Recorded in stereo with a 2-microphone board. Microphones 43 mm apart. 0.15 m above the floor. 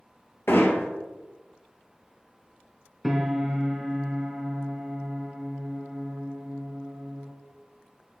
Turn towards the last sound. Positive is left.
turn(degrees=-5)  # may be behind; listen again after turning